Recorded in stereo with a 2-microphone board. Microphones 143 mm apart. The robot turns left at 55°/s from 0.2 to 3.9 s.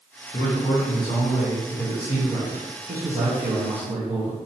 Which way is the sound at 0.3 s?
80° left.